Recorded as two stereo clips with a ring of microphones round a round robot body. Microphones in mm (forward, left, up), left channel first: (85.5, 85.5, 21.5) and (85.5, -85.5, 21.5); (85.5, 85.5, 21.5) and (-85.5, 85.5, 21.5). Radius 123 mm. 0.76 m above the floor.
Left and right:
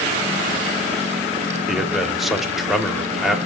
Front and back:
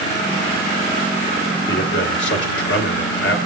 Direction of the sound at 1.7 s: Straight ahead.